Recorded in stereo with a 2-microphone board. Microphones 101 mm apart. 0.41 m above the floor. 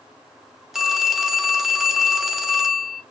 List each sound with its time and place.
0.7 s a phone ringing: centre (ahead or behind), 0.6 m